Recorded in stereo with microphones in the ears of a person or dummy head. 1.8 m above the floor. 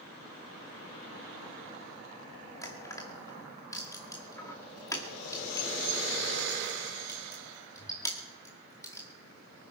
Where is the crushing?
15° left (ahead or behind), 2 m.